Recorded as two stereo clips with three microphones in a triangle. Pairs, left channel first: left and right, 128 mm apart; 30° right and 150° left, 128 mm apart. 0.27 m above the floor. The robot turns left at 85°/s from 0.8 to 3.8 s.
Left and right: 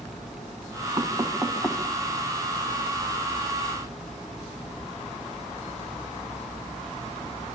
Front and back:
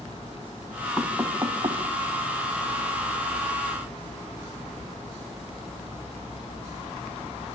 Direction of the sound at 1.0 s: 115° right.